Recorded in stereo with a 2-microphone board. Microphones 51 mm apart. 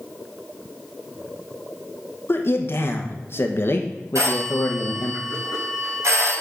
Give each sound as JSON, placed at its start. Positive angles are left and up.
{"t": 2.3, "sound": "a man speaking", "side_deg": 50, "distance_m": 1.1}
{"t": 4.2, "sound": "a phone ringing", "side_deg": -80, "distance_m": 4.5}